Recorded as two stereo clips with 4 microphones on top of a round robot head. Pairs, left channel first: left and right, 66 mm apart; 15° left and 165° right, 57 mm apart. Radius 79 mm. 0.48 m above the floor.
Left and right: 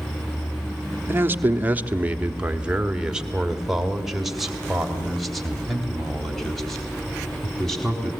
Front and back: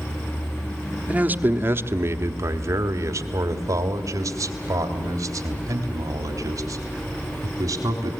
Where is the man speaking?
120° right, 1.1 m; by 8.1 s 175° left, 4.5 m.